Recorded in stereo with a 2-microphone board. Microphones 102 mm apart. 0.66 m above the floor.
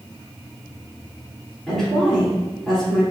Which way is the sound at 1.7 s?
5° left (ahead or behind).